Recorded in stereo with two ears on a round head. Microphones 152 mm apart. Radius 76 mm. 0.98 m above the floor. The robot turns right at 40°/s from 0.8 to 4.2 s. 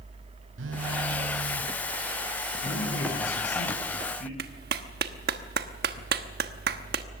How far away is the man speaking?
About 9.5 m.